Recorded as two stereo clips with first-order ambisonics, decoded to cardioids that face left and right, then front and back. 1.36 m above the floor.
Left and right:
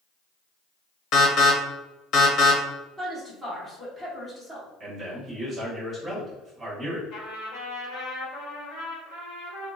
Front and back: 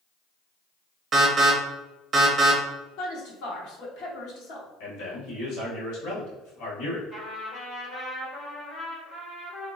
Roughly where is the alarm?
Behind left.